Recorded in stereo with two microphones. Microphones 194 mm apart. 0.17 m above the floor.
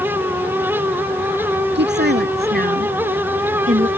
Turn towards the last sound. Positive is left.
turn(degrees=-35)  # may be behind; listen again after turning